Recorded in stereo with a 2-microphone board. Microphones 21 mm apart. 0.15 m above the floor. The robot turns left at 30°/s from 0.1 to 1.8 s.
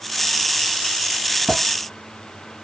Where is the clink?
35° right (ahead or behind), 1.9 m; by 1.6 s 40° right (ahead or behind), 1.9 m.